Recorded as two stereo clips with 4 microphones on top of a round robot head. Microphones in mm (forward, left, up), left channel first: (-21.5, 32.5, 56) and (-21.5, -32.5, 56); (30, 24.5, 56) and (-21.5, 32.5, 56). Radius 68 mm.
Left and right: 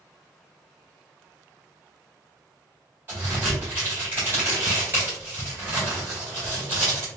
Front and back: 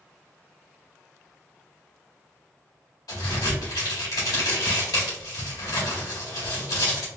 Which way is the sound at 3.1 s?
25° right.